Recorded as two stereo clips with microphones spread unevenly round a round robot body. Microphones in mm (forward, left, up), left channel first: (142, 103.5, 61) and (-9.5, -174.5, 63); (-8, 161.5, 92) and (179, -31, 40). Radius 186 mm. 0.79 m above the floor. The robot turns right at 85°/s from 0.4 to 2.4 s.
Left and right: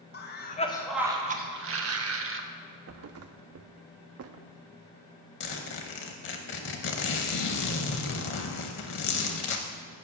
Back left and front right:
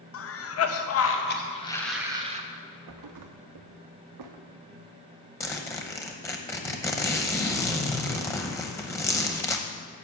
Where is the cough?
105° left, 1.0 m; by 2.4 s 85° right, 1.0 m.